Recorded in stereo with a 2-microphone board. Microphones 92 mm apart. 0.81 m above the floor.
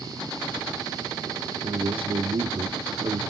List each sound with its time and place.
1.6 s a man speaking: 70° right (ahead or behind), 1.4 m